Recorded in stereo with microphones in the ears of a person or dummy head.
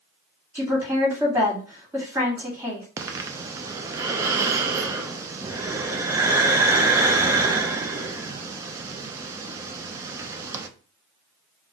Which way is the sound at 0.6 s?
10° right (ahead or behind).